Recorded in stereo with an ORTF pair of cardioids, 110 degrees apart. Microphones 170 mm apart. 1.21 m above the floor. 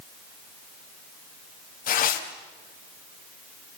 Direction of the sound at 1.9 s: 55° left.